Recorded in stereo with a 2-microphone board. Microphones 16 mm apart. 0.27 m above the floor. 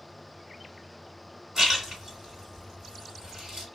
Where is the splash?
30° right (ahead or behind), 2 m.